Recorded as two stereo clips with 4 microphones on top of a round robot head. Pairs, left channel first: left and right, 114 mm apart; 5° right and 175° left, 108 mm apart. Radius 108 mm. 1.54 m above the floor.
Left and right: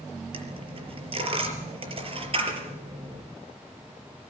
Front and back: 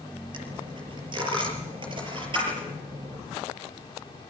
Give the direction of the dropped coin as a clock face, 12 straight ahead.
4 o'clock.